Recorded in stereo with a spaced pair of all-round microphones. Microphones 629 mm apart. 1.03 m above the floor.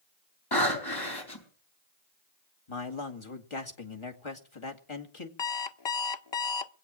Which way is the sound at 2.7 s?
50° left (ahead or behind).